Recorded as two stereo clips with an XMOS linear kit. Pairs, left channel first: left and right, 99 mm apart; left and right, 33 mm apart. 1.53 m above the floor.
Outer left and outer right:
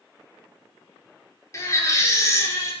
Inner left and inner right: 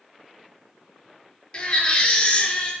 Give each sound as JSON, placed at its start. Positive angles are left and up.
{"t": 1.5, "sound": "a baby crying", "side_deg": 30, "distance_m": 2.5}